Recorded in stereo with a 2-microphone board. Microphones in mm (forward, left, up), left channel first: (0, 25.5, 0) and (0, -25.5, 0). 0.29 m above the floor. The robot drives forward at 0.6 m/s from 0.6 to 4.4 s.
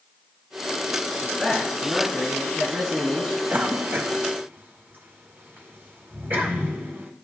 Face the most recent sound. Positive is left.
turn(degrees=-45)  # may be behind; listen again after turning